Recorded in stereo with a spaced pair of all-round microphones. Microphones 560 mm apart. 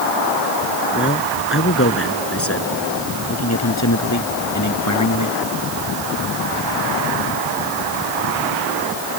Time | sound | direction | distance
0.9 | a man speaking | 20° left (ahead or behind) | ?